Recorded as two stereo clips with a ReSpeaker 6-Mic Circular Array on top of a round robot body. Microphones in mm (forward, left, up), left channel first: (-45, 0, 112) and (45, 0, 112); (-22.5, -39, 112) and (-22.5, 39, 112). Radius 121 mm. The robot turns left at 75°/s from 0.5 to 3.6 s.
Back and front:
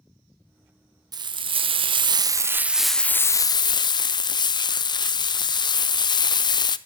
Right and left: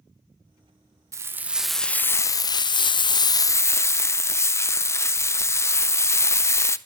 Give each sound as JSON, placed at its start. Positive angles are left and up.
{"t": 1.1, "sound": "frying", "azimuth_deg": 40, "distance_m": 0.6}